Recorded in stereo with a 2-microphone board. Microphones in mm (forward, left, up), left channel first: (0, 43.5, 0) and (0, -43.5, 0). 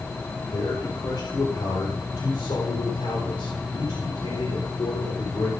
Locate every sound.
0.5 s a man speaking: 55° left (ahead or behind), 4.5 m; by 5.5 s 80° left, 4 m